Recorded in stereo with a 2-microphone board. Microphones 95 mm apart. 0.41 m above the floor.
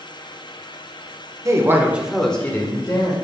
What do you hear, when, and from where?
1.4 s a woman speaking: 35° right (ahead or behind), 1.2 m; by 3.1 s 40° left (ahead or behind), 1.5 m